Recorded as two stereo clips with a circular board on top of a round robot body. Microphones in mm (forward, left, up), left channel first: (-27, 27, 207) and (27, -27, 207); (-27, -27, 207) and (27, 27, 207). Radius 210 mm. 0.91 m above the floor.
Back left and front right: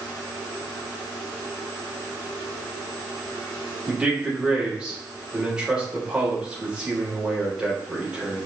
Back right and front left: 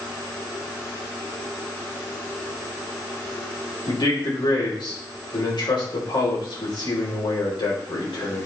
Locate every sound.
3.9 s a man speaking: 125° right, 4 m